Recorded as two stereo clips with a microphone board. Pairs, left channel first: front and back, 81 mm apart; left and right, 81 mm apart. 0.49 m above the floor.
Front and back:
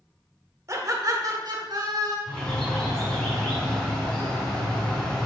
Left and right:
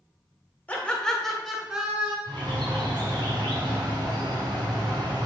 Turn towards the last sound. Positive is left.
turn(degrees=-75)